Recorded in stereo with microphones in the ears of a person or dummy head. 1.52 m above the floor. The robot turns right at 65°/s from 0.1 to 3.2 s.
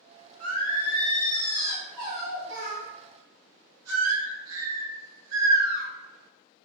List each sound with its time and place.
0.4 s singing: 95° left, 1.0 m; by 5.8 s 85° right, 1.0 m